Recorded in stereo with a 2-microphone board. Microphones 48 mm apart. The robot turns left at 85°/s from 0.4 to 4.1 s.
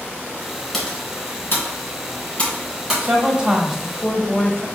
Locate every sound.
0.7 s typing on a keyboard: centre (ahead or behind), 2 m; by 3.1 s 20° right (ahead or behind), 2 m
3.0 s a woman speaking: 110° right, 1.1 m; by 4.7 s 155° left, 1.1 m